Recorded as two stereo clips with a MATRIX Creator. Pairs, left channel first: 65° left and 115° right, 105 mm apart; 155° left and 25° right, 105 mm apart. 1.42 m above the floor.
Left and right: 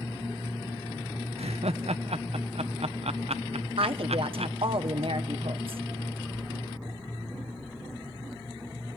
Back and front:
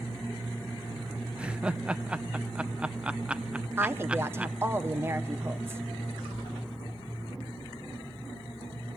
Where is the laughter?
105° right, 0.8 m.